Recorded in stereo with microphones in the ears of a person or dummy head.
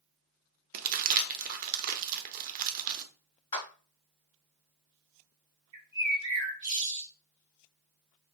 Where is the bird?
20° right (ahead or behind), 1.4 m.